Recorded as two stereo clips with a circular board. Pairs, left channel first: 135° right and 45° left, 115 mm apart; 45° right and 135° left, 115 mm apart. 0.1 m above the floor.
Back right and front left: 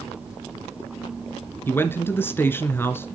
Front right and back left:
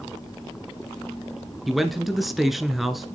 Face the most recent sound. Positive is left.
turn(degrees=-140)